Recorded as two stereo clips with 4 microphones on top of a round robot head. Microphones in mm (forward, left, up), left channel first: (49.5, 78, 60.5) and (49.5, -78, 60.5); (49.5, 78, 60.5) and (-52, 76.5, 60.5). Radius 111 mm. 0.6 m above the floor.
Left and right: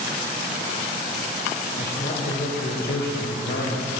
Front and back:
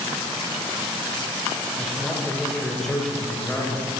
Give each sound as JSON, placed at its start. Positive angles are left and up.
{"t": 1.8, "sound": "a man speaking", "azimuth_deg": 90, "distance_m": 3.0}